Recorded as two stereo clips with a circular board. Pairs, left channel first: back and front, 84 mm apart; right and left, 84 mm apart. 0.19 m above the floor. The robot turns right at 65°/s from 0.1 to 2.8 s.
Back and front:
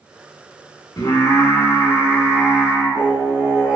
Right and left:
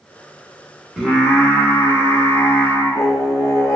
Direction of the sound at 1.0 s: 170° left.